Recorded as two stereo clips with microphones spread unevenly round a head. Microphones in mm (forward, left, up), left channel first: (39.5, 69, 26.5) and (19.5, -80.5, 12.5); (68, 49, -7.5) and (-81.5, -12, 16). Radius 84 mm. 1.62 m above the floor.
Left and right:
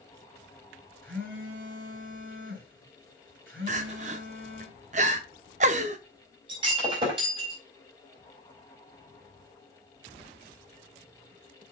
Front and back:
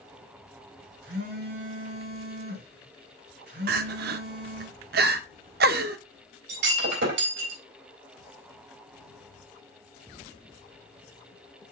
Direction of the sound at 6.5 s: 165° right.